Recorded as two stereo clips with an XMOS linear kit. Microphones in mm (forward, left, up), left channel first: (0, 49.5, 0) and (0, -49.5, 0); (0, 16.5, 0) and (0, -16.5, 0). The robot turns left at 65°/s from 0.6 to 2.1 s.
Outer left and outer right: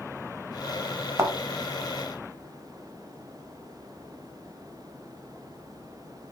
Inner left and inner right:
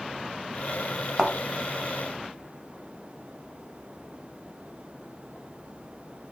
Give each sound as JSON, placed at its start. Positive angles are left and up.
{"t": 1.2, "sound": "a thud", "side_deg": -30, "distance_m": 0.6}